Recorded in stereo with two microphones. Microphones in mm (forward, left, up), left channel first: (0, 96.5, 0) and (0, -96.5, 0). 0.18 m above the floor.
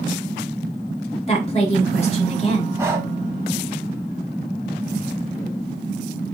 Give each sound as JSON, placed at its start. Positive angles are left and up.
{"t": 1.3, "sound": "a woman speaking", "side_deg": 35, "distance_m": 1.9}
{"t": 2.8, "sound": "breathing", "side_deg": -15, "distance_m": 1.2}